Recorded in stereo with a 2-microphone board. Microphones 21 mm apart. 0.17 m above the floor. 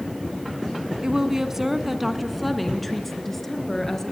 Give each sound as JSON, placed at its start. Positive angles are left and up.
{"t": 1.0, "sound": "a woman speaking", "side_deg": -30, "distance_m": 1.8}